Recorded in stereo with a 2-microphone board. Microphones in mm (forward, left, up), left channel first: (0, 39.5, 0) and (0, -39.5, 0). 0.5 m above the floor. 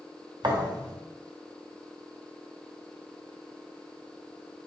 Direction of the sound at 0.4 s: 70° right (ahead or behind).